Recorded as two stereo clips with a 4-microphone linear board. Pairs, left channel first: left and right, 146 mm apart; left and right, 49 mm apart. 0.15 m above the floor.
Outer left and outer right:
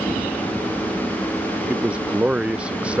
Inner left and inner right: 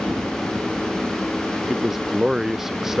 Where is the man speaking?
5° right (ahead or behind).